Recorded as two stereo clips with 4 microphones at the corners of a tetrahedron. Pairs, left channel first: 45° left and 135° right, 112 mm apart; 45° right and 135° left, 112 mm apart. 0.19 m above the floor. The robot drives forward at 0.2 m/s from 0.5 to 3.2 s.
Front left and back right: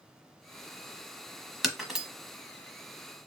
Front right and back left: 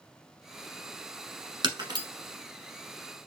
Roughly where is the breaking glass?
Behind left.